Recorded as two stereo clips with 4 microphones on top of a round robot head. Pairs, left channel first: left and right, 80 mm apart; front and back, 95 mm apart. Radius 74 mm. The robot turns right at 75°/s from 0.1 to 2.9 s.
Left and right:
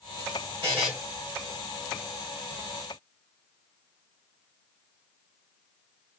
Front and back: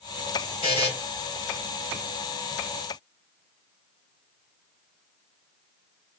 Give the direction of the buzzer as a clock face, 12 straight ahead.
1 o'clock.